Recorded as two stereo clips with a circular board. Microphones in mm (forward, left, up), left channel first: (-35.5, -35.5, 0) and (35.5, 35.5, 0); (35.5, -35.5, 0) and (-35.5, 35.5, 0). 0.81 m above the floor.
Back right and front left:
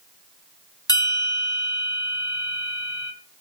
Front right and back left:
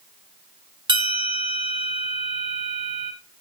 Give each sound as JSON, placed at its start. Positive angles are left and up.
{"t": 0.9, "sound": "a bell", "azimuth_deg": 175, "distance_m": 2.0}